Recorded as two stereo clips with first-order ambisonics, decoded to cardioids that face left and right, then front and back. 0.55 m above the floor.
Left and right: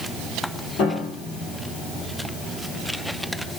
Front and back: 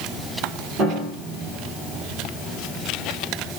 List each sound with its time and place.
0.8 s a piano: 130° left, 3 m